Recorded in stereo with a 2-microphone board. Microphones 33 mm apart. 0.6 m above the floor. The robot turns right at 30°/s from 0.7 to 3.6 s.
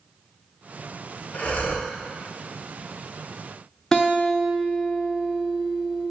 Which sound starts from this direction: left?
Breathing, at 1.3 s.